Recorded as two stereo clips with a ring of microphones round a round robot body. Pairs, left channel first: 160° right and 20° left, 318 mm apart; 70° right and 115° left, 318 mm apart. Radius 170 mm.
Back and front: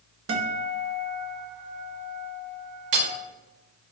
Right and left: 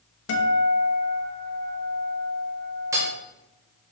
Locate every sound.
0.3 s a guitar: 25° right, 1.3 m
2.9 s hammering: 30° left, 1.2 m